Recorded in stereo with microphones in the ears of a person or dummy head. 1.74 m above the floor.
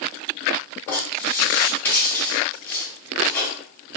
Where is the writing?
10° left (ahead or behind), 0.8 m.